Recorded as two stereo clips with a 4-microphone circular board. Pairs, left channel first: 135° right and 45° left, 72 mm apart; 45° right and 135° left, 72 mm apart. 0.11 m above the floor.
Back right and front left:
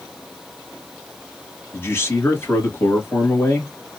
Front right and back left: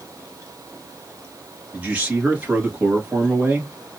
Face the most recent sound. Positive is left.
turn(degrees=-165)